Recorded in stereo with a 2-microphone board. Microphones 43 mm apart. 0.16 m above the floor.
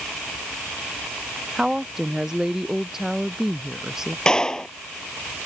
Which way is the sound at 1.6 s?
10° right (ahead or behind).